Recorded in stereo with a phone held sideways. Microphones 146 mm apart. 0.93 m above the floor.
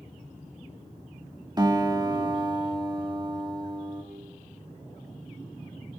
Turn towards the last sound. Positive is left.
turn(degrees=-30)  # may be behind; listen again after turning